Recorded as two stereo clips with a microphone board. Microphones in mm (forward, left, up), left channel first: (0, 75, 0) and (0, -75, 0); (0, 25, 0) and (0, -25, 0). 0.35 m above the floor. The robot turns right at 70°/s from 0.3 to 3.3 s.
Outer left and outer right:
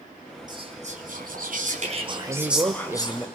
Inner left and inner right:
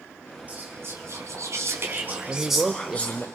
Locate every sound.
0.5 s whispering: 150° right, 4 m; by 3.3 s 45° left, 4 m
2.3 s a man speaking: 25° right (ahead or behind), 0.9 m; by 3.2 s 5° right (ahead or behind), 0.9 m